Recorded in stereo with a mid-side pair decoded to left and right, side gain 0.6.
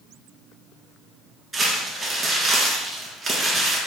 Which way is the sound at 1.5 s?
30° right.